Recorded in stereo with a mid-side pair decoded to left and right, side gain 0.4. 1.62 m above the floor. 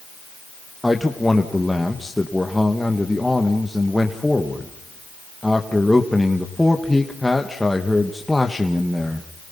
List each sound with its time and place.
0.8 s a man speaking: 10° left, 2.0 m